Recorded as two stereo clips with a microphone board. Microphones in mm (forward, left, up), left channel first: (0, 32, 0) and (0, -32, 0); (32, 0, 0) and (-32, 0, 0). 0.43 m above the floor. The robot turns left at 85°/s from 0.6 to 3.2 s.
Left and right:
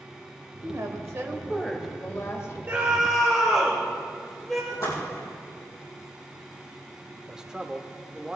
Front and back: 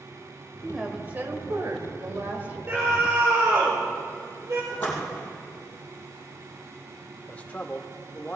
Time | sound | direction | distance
0.6 | a woman speaking | 80° right | 1.4 m
2.7 | a scream | 140° right | 1.5 m
4.7 | a splash | 65° left | 4 m
7.3 | a man speaking | 25° right | 0.8 m